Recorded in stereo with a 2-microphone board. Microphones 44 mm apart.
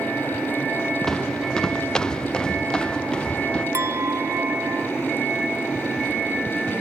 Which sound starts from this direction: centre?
Footsteps, at 1.1 s.